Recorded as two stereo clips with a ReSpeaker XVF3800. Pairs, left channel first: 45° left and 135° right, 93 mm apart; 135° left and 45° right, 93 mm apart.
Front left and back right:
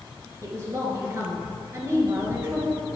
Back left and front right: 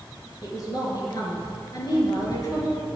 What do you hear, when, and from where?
0.4 s a woman speaking: 170° left, 2 m